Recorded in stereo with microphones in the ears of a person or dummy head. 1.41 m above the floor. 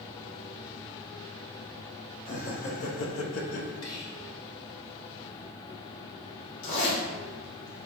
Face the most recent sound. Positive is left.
turn(degrees=65)  # may be behind; listen again after turning